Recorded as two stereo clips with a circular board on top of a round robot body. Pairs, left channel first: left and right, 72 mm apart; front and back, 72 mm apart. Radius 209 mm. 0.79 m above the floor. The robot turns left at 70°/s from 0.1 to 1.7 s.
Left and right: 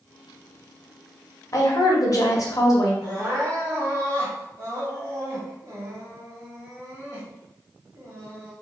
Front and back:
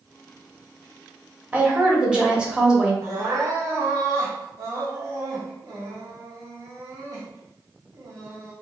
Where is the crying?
135° right, 1.0 m.